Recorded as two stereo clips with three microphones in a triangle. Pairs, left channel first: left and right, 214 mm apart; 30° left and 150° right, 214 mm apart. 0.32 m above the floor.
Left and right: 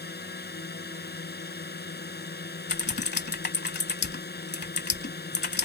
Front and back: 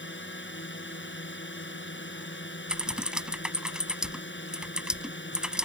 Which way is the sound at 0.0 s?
55° left.